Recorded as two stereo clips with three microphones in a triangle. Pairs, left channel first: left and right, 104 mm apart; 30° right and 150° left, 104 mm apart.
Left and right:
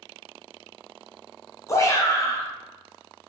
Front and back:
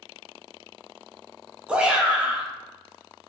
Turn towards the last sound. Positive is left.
turn(degrees=80)